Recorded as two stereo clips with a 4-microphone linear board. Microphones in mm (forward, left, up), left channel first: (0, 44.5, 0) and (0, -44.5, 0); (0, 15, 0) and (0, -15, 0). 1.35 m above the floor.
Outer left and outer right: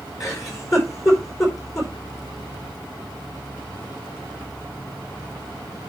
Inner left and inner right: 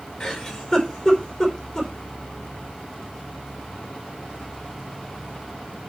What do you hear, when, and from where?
0.2 s a giggle: 40° left (ahead or behind), 4.5 m